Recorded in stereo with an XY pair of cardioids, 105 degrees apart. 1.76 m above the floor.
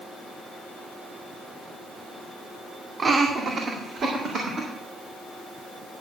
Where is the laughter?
40° right, 1.5 m; by 4.7 s 65° right, 3.5 m.